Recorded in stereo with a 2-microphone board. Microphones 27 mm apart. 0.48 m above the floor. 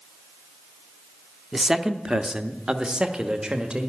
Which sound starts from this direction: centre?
A man speaking, at 1.5 s.